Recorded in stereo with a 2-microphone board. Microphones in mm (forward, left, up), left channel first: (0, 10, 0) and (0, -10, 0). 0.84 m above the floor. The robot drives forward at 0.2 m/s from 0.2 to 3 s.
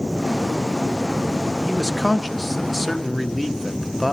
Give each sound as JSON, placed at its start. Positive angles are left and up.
{"t": 1.7, "sound": "a man speaking", "side_deg": 0, "distance_m": 0.5}